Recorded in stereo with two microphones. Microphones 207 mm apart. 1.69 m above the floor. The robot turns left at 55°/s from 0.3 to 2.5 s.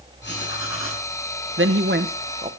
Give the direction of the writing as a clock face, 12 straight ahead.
8 o'clock.